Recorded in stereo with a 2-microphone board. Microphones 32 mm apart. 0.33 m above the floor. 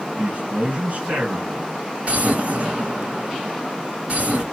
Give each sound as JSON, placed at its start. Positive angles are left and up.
{"t": 0.2, "sound": "a man speaking", "side_deg": -55, "distance_m": 3.0}
{"t": 2.0, "sound": "an explosion", "side_deg": -45, "distance_m": 2.5}